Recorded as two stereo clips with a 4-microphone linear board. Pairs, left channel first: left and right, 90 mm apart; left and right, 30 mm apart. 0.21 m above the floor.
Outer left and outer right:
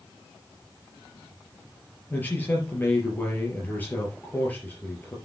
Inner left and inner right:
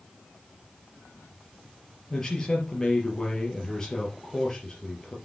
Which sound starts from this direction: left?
A man speaking, at 2.1 s.